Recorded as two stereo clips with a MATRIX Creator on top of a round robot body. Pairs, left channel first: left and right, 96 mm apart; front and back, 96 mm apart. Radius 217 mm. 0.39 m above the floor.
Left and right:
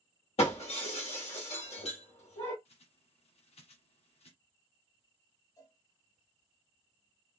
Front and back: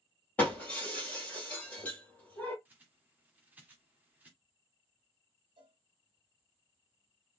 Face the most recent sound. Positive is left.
turn(degrees=140)